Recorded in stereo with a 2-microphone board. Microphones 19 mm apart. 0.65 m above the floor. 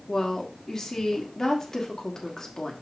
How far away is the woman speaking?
About 1.6 m.